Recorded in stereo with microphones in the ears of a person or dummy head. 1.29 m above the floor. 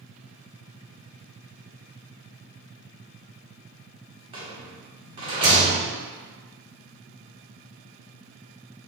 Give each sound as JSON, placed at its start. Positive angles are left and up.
{"t": 4.3, "sound": "a rattle", "side_deg": -30, "distance_m": 1.1}